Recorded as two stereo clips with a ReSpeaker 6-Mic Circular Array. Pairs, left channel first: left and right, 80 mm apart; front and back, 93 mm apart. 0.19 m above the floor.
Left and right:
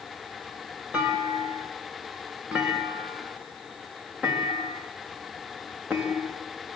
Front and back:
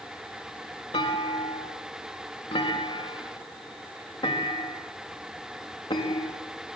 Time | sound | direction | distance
0.9 | a clunk | 15° right | 5 m